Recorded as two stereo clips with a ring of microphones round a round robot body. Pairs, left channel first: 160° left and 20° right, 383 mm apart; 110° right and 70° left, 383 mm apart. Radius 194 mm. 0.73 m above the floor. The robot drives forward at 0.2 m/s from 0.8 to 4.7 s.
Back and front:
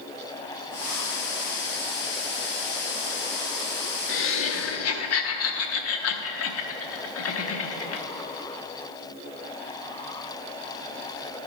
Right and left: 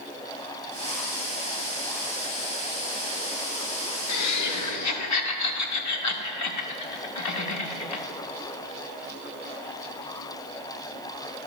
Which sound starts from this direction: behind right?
Laughter, at 4.1 s.